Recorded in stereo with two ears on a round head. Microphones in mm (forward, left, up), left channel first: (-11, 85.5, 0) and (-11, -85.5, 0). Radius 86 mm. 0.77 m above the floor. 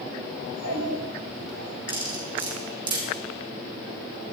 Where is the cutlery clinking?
25° right (ahead or behind), 5 m.